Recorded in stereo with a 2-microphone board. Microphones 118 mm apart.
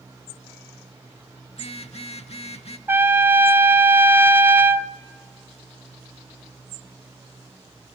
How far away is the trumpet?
About 0.5 m.